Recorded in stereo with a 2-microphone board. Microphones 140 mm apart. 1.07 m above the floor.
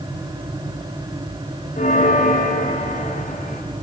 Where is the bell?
70° left (ahead or behind), 1.4 m.